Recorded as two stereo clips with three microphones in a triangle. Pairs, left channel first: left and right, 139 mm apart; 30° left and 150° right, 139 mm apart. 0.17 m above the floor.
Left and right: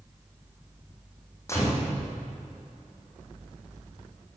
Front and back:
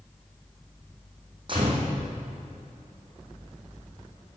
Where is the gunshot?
160° left, 4 m.